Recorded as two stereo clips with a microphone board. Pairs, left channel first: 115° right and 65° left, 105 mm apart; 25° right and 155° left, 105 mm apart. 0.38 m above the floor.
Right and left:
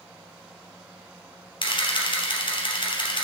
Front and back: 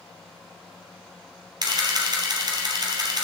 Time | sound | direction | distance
1.6 | a camera shutter | 155° right | 3 m